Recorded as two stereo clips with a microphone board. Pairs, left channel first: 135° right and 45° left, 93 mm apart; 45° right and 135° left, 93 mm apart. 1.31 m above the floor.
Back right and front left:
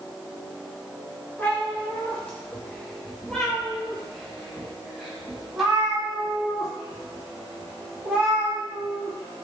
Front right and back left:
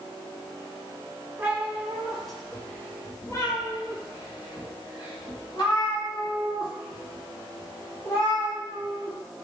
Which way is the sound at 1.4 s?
175° left.